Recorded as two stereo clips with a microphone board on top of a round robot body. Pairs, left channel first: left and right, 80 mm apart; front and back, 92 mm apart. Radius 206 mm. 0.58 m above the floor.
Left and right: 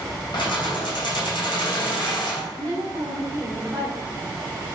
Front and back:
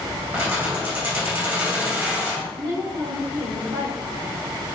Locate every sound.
0.3 s keys jangling: 110° left, 2.5 m
2.5 s a woman speaking: 145° right, 2.5 m